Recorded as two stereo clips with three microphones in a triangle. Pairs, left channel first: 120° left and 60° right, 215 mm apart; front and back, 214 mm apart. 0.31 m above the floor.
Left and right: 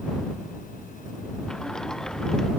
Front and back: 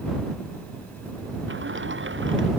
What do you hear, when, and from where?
1.5 s a sliding door: 155° right